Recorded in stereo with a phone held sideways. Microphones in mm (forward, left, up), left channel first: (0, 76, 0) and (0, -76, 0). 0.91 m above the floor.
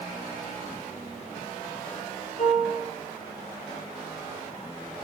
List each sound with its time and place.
2.4 s a piano: 50° left (ahead or behind), 5.5 m